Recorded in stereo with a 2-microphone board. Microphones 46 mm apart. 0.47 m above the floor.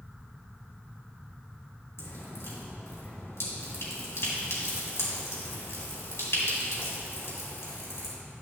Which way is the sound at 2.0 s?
75° left (ahead or behind).